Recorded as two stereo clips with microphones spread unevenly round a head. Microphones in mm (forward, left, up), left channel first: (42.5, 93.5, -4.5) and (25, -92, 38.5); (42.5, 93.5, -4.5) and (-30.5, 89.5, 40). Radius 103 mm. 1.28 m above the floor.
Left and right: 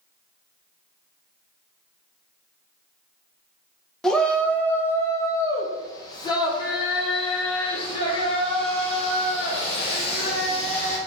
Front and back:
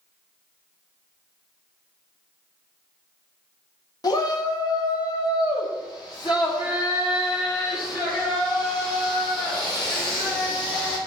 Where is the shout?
Straight ahead, 1.2 m; by 11.0 s 25° left, 4.5 m.